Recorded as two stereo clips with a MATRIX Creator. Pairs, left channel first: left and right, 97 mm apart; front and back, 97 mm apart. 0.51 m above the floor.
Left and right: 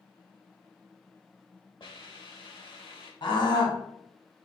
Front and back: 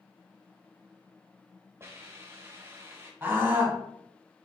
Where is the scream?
110° left, 1.7 m.